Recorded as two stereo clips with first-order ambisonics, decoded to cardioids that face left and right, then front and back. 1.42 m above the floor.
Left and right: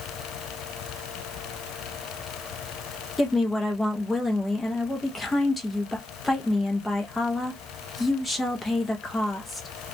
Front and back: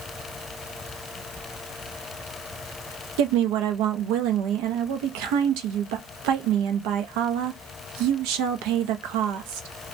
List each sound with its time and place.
3.2 s a woman speaking: 170° left, 0.7 m